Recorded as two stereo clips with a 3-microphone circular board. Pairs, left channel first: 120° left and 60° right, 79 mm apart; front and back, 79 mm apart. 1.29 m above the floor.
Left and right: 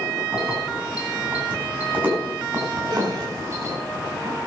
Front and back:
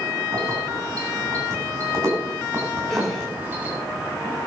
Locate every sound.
0.3 s keys jangling: 140° right, 9.5 m; by 3.8 s 110° right, 7.5 m
2.9 s a gasp: 90° right, 5.5 m